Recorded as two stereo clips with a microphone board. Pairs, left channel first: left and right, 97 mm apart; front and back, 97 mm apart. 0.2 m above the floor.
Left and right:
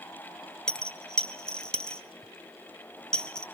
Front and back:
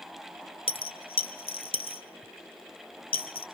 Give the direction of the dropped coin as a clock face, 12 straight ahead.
12 o'clock.